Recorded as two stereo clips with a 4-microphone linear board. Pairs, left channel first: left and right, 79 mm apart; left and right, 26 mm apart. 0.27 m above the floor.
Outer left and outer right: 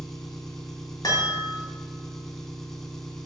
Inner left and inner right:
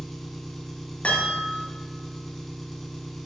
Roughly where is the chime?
Left.